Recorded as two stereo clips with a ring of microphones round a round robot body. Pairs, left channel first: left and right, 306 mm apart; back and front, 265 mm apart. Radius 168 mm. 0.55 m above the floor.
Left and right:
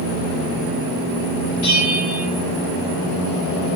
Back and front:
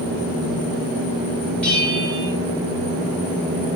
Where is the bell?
95° left, 3.5 m.